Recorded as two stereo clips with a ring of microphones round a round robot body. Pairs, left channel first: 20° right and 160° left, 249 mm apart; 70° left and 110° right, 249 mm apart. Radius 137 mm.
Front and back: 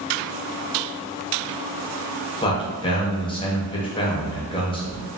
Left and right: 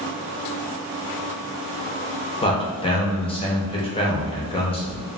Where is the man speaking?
25° left, 0.8 m.